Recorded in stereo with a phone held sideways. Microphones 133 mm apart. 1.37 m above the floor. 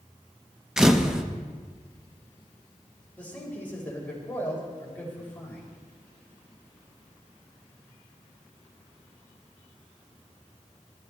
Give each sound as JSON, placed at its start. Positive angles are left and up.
{"t": 0.8, "sound": "a camera shutter", "side_deg": -5, "distance_m": 1.0}
{"t": 3.2, "sound": "a man speaking", "side_deg": 15, "distance_m": 5.0}